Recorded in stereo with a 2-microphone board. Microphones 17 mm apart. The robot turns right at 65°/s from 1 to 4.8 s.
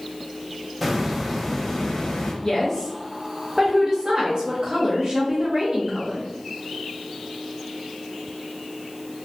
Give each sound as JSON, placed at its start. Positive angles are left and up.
{"t": 0.8, "sound": "a hiss", "azimuth_deg": -15, "distance_m": 0.7}
{"t": 2.4, "sound": "a woman speaking", "azimuth_deg": 135, "distance_m": 0.6}